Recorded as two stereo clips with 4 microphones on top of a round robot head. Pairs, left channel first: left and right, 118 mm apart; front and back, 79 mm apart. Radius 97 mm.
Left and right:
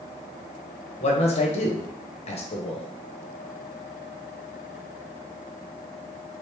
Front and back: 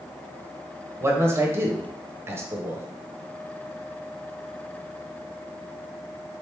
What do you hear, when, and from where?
1.0 s a man speaking: 120° left, 0.9 m